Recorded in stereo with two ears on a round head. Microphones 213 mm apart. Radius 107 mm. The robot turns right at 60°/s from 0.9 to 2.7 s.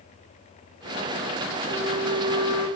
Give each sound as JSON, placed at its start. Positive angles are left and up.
{"t": 1.7, "sound": "a flute", "azimuth_deg": 45, "distance_m": 3.5}